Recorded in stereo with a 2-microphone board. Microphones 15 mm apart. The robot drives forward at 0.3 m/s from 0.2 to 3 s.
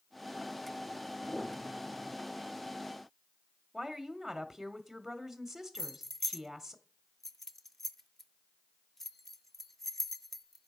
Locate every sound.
1.3 s a piano: 50° left (ahead or behind), 4.5 m
3.7 s a woman speaking: 5° right (ahead or behind), 1.0 m
5.8 s keys jangling: 15° left (ahead or behind), 0.6 m